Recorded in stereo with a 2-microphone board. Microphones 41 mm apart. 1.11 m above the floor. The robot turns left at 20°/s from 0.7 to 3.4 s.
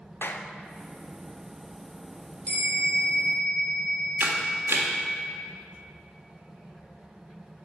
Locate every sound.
0.2 s a clap: 65° left (ahead or behind), 0.6 m
2.5 s a bell: 35° left (ahead or behind), 3.5 m; by 5.2 s 55° left (ahead or behind), 3.5 m
4.2 s a camera shutter: 75° right (ahead or behind), 1.5 m